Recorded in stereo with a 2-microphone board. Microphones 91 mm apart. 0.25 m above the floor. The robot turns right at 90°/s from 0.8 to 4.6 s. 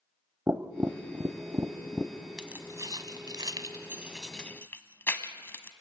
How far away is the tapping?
About 0.7 m.